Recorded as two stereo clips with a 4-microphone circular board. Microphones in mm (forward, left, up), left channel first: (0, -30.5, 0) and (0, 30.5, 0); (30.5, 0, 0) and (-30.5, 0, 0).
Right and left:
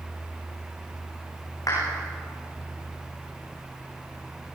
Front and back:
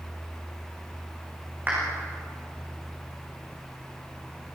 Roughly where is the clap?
Behind right.